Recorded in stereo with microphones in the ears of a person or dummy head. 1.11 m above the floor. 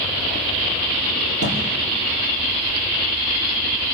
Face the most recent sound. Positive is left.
turn(degrees=-70)  # may be behind; listen again after turning